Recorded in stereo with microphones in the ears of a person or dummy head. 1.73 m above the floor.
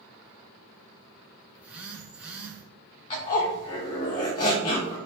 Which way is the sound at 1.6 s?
5° right (ahead or behind).